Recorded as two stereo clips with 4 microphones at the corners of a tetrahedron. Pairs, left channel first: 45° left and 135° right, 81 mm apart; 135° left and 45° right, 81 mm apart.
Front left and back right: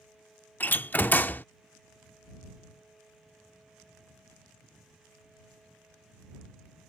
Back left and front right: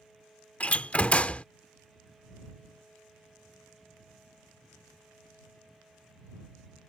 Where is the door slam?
85° left.